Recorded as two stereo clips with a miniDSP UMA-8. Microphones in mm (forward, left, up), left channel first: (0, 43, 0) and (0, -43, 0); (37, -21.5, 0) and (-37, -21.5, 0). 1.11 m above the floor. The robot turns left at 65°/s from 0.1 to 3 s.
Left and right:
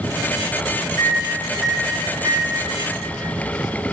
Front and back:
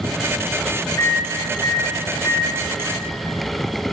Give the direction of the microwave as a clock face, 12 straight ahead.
11 o'clock.